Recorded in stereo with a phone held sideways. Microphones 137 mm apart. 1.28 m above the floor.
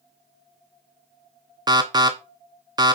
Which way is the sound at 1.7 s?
30° right (ahead or behind).